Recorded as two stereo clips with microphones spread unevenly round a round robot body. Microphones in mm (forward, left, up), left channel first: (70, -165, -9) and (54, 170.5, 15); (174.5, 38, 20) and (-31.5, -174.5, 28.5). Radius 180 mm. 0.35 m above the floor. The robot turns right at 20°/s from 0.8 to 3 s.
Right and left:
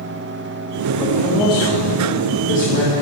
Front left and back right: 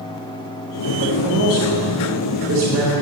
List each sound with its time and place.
1.0 s a man speaking: 165° right, 1.7 m; by 3.0 s 125° right, 1.7 m